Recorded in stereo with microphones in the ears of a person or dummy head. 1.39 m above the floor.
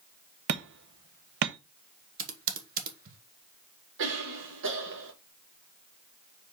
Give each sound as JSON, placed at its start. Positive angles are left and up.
{"t": 0.5, "sound": "hammering", "side_deg": -60, "distance_m": 0.7}
{"t": 2.2, "sound": "typing on a keyboard", "side_deg": -45, "distance_m": 1.3}
{"t": 4.0, "sound": "a cough", "side_deg": -65, "distance_m": 2.0}